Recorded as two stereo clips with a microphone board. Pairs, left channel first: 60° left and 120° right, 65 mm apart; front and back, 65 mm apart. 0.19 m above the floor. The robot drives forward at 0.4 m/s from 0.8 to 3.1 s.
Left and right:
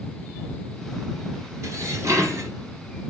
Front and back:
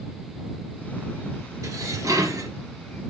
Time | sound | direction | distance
1.6 | dishes clattering | 155° right | 2 m